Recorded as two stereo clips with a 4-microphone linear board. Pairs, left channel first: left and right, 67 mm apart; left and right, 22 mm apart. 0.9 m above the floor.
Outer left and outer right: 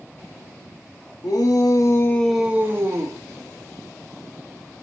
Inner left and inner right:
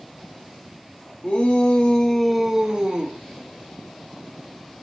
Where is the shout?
75° left (ahead or behind), 1.6 m; by 3.2 s 45° right (ahead or behind), 1.7 m.